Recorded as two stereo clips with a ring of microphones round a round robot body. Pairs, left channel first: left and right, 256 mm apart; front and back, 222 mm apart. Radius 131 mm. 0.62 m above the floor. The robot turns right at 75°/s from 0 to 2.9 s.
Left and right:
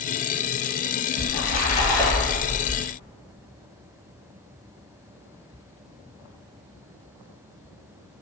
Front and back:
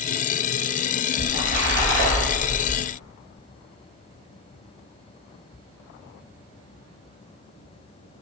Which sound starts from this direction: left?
A splash, at 1.2 s.